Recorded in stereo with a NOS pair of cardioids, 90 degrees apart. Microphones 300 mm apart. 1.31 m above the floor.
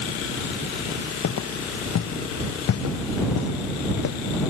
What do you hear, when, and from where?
1.2 s footsteps: 60° left